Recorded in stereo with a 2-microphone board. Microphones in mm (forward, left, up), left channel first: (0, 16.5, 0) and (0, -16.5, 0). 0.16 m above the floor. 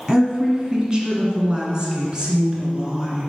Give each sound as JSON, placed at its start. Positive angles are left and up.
{"t": 0.1, "sound": "a woman speaking", "side_deg": -20, "distance_m": 1.4}